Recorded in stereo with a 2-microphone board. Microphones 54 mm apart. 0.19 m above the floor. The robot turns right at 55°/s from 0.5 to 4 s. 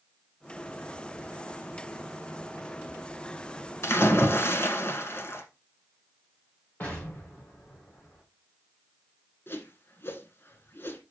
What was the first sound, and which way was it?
A splash, 55° left (ahead or behind).